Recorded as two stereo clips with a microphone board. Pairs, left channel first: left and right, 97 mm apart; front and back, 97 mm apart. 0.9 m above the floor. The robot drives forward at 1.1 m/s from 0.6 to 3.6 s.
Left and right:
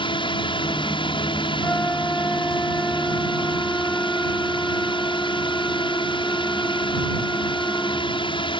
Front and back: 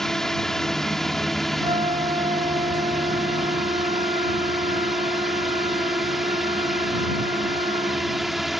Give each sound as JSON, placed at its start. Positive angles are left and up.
{"t": 0.0, "sound": "a drone", "azimuth_deg": 85}
{"t": 1.6, "sound": "a flute", "azimuth_deg": 165}